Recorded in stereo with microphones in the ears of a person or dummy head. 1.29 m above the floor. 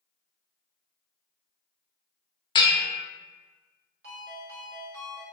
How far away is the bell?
About 0.8 m.